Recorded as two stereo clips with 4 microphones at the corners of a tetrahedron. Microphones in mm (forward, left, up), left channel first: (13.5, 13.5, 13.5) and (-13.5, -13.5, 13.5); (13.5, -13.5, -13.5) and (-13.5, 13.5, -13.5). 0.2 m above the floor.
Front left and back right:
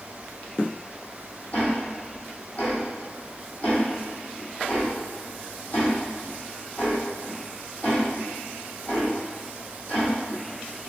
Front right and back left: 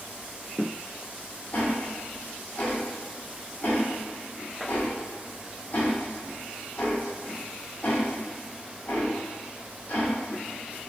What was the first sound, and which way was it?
Ticking, 5° right.